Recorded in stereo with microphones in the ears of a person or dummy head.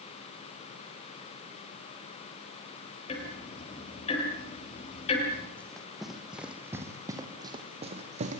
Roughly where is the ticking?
Left.